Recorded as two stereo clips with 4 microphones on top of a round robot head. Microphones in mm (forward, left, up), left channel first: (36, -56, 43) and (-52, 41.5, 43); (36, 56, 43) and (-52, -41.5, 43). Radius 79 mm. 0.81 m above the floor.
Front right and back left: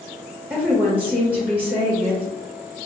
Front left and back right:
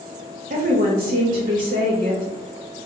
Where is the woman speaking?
150° right, 0.9 m.